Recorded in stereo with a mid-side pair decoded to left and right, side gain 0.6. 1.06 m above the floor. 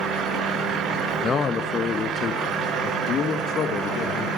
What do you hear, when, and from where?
1.2 s a man speaking: 35° left, 0.8 m; by 4.3 s 50° left, 2.5 m